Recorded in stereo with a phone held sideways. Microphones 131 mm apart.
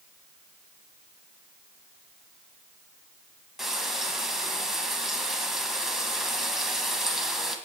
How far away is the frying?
About 1.7 m.